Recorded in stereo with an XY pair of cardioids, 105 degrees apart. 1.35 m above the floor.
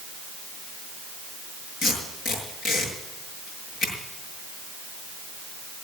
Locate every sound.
1.8 s tape being pulled: 70° left, 6.5 m